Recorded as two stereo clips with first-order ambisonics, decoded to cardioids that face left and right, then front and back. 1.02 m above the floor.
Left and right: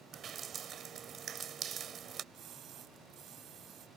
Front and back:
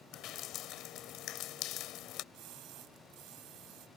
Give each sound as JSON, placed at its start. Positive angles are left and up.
{"t": 0.1, "sound": "dripping", "azimuth_deg": -35}
{"t": 2.3, "sound": "a splash", "azimuth_deg": -140}